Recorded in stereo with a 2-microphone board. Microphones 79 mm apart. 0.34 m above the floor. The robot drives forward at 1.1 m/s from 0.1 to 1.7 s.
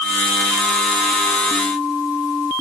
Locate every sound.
Only background noise.